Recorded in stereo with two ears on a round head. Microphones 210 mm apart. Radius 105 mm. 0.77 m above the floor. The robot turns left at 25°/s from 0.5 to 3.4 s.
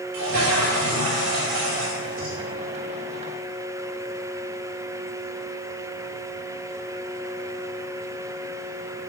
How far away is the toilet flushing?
About 4 m.